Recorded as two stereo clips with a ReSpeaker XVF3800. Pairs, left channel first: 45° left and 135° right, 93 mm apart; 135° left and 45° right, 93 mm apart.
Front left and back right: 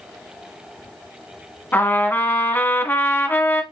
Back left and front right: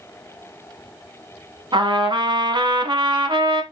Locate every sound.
1.7 s a trumpet: 20° right, 0.7 m